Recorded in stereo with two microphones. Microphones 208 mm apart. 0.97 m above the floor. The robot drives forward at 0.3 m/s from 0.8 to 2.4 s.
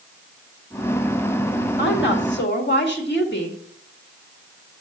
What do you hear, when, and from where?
1.8 s a woman speaking: 65° left (ahead or behind), 1.9 m; by 3.6 s 60° left (ahead or behind), 1.9 m